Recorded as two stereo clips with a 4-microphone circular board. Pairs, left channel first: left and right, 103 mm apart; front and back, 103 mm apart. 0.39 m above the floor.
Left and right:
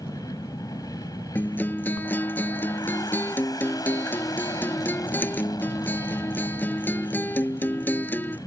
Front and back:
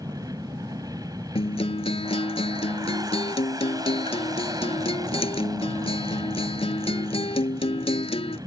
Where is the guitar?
20° left.